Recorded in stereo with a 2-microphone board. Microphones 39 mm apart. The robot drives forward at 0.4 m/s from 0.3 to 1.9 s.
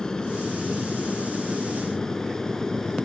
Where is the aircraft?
20° left (ahead or behind); by 3.1 s 15° left (ahead or behind).